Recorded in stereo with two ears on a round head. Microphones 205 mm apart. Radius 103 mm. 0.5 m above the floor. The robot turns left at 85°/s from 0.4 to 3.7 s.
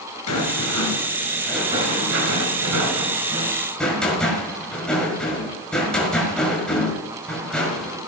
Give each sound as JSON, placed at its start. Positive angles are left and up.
{"t": 0.3, "sound": "a rattle", "azimuth_deg": 95, "distance_m": 5.5}